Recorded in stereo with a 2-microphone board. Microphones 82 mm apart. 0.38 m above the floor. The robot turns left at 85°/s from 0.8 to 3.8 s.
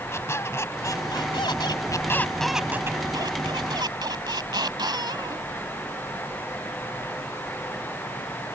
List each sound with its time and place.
0.1 s a squeak: 145° left; by 5.5 s 110° right